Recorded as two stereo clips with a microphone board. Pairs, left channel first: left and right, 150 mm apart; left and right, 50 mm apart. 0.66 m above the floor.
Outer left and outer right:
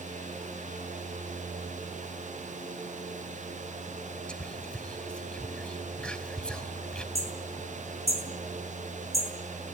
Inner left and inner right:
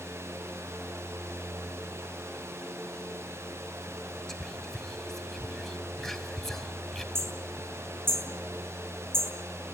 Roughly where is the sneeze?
I don't hear a sneeze.